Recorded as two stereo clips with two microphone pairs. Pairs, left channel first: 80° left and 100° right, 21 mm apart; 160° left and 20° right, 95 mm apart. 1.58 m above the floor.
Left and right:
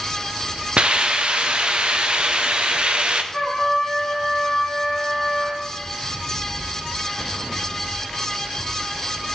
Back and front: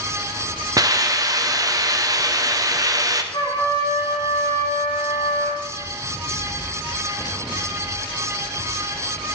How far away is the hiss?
About 0.7 m.